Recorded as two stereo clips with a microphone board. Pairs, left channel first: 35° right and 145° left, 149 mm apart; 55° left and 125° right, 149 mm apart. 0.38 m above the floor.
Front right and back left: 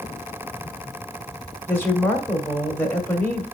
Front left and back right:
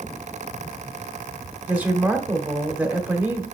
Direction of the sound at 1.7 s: 75° right.